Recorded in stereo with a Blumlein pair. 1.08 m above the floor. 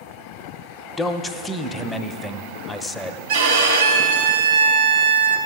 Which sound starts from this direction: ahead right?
A violin, at 3.3 s.